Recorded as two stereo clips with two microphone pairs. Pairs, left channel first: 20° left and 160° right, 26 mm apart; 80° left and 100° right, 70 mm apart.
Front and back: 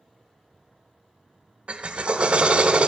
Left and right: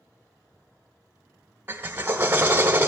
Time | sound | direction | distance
1.7 | a drill | 140° right | 0.6 m